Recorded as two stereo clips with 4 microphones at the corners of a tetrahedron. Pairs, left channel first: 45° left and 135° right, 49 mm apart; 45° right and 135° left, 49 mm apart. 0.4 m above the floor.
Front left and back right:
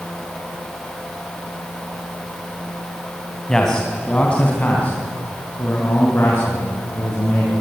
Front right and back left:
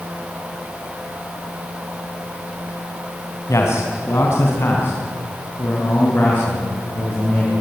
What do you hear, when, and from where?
3.5 s a man speaking: 35° right, 3.5 m; by 7.5 s 10° left, 6.5 m